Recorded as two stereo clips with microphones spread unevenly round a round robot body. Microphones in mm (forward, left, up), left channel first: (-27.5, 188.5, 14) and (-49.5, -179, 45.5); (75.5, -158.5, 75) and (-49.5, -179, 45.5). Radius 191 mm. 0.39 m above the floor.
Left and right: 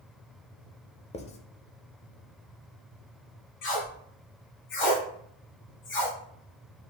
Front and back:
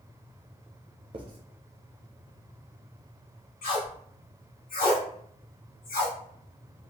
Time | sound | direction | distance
1.1 | writing | 155° left | 0.6 m
3.6 | tape being pulled | 25° left | 2.0 m